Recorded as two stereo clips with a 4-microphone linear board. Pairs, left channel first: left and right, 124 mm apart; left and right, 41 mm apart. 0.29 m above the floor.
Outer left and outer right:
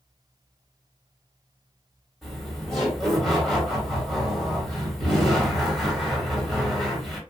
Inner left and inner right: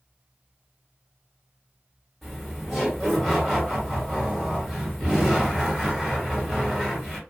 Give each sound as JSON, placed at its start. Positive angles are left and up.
{"t": 2.2, "sound": "laughter", "side_deg": 0, "distance_m": 1.9}